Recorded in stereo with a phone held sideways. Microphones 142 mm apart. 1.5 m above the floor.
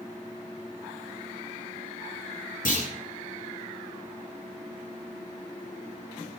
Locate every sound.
2.6 s a clunk: 70° left (ahead or behind), 9.5 m